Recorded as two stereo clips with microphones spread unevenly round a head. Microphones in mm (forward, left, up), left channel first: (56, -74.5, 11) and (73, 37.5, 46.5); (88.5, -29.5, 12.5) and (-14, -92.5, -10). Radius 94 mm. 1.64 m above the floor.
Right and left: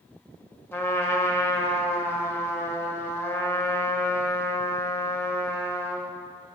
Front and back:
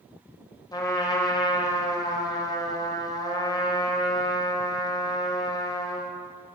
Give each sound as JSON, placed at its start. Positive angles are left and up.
{"t": 0.7, "sound": "a trumpet", "azimuth_deg": -25, "distance_m": 2.0}